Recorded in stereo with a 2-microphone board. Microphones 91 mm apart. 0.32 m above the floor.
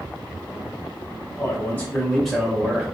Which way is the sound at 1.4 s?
25° left (ahead or behind).